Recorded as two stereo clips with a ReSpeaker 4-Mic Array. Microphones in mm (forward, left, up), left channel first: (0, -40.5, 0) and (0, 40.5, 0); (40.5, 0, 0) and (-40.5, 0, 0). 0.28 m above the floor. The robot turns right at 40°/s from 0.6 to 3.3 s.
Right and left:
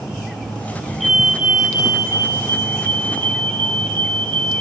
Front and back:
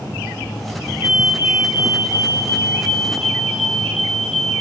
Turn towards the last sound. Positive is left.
turn(degrees=90)